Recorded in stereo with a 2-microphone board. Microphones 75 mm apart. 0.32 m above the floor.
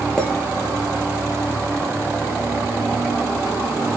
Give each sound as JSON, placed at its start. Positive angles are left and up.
{"t": 0.2, "sound": "a clink", "side_deg": 10, "distance_m": 4.5}